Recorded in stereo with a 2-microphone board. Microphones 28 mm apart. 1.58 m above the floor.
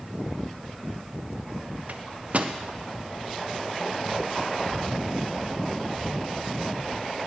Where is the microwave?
50° right (ahead or behind), 0.7 m.